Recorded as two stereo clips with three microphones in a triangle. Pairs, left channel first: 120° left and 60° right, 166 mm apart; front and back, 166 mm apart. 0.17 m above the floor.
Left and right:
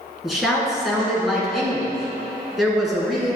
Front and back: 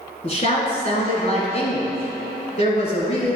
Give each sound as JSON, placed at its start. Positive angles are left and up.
{"t": 0.2, "sound": "a woman speaking", "azimuth_deg": 30, "distance_m": 1.7}